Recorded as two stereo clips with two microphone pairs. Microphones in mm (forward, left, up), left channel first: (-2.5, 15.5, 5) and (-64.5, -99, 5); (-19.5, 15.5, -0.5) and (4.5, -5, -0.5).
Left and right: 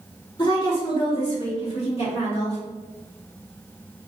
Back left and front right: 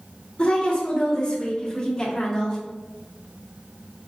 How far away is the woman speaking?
About 1.6 m.